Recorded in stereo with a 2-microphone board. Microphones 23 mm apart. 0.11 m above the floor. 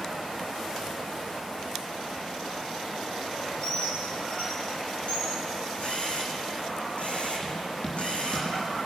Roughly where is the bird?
Left.